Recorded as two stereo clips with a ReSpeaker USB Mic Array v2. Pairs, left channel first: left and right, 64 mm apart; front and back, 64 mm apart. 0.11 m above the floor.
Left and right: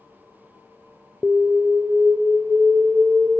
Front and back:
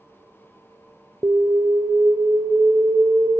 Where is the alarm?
170° right, 1.3 m.